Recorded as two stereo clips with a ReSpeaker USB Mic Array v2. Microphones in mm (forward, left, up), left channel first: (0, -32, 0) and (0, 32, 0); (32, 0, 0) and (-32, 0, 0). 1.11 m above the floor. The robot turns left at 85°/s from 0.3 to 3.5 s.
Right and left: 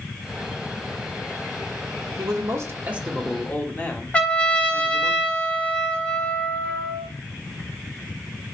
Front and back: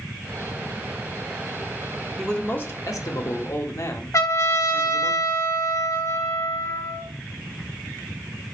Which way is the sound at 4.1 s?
20° right.